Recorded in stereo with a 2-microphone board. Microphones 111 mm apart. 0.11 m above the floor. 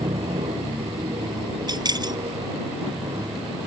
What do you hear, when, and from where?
0.0 s an aircraft: 55° right (ahead or behind); by 3.7 s 50° right (ahead or behind)
1.7 s keys jangling: 40° right (ahead or behind)